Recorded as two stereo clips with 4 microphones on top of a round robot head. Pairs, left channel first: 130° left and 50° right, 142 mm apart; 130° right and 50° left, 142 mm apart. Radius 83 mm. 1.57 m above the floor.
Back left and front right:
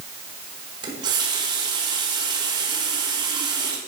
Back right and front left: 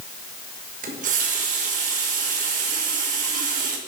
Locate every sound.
0.8 s a running tap: 15° left, 1.3 m